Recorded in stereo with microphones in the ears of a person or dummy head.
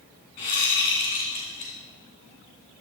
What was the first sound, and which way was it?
A whoosh, 35° left (ahead or behind).